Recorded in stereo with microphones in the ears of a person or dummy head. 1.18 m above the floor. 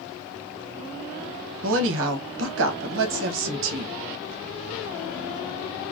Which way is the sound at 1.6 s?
75° right (ahead or behind).